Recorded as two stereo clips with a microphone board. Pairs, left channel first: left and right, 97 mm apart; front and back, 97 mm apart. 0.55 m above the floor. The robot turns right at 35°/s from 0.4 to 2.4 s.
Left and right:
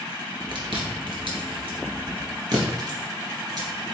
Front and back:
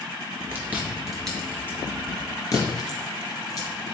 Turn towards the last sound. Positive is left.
turn(degrees=-45)